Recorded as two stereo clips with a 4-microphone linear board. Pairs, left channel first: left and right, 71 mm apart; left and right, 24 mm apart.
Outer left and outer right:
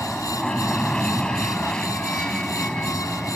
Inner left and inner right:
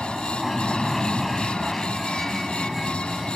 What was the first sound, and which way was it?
An aircraft, 10° left (ahead or behind).